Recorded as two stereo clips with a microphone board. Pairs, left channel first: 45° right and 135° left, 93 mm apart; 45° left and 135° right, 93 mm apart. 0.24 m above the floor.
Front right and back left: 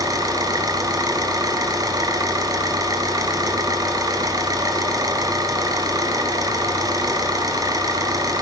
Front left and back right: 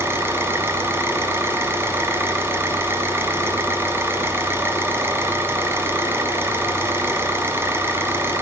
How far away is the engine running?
About 1.6 m.